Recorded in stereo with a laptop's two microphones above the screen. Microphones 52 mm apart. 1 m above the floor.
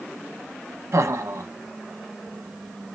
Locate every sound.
0.9 s laughter: 70° right (ahead or behind), 0.7 m